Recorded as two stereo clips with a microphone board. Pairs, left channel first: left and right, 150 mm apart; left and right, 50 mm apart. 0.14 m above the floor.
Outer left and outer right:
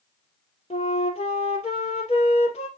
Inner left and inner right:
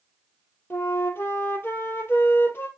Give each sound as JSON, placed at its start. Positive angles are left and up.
{"t": 0.7, "sound": "a flute", "side_deg": 45, "distance_m": 1.9}